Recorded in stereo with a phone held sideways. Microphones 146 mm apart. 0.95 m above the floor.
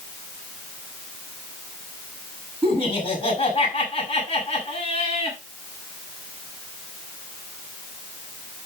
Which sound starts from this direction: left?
Laughter, at 2.6 s.